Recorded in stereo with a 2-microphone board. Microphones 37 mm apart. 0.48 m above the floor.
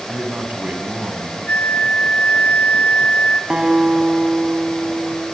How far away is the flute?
About 2.5 m.